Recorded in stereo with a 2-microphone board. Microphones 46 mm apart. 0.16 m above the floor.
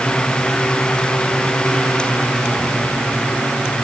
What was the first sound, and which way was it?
Only background noise.